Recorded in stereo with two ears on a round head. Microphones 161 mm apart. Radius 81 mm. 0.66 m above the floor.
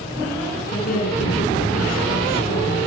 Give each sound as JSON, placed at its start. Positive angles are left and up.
{"t": 0.7, "sound": "a woman speaking", "side_deg": 50, "distance_m": 7.0}